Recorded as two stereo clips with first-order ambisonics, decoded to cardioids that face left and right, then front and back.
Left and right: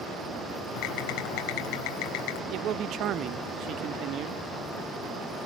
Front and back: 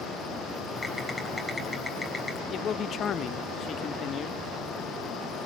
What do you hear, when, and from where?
0.8 s typing on a keyboard: 85° left, 4 m
2.5 s a man speaking: 55° right, 0.7 m